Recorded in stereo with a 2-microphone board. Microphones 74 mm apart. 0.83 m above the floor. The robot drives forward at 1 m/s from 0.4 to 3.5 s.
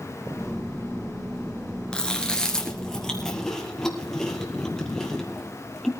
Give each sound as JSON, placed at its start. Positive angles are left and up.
{"t": 1.9, "sound": "chewing", "side_deg": 15, "distance_m": 1.8}